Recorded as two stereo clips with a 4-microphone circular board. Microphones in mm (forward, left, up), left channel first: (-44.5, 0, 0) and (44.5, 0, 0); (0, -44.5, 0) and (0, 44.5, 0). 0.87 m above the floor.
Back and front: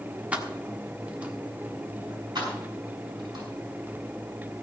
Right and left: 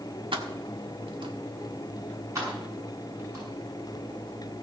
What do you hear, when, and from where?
0.3 s keys jangling: 75° left, 1.4 m
2.4 s keys jangling: 40° left, 6.5 m